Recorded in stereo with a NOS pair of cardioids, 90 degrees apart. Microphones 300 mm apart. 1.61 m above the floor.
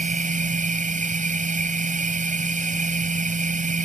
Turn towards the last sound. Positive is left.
turn(degrees=-25)